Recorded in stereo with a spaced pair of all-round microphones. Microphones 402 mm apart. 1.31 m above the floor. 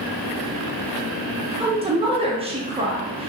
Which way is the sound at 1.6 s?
15° right (ahead or behind).